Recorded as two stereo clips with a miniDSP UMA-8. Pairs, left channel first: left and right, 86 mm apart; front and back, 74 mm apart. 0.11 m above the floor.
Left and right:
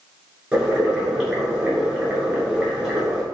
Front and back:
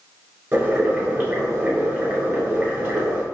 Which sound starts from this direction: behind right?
Boiling, at 0.5 s.